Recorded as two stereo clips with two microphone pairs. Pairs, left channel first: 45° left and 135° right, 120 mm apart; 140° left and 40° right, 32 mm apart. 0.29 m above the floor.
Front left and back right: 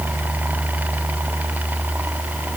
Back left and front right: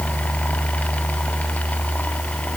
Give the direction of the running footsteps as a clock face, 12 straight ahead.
I don't hear running footsteps.